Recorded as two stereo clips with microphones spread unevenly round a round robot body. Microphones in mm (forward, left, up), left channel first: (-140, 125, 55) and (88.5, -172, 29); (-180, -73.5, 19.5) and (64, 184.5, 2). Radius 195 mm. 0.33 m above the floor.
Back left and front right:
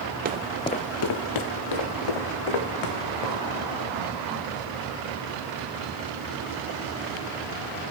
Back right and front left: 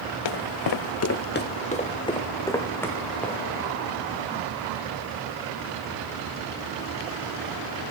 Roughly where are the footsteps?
Behind right.